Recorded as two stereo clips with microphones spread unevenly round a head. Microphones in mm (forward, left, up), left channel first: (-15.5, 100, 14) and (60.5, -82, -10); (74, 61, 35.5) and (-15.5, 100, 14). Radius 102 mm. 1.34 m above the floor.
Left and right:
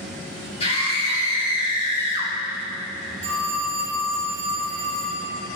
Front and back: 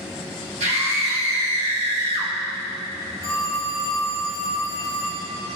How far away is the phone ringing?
About 2 m.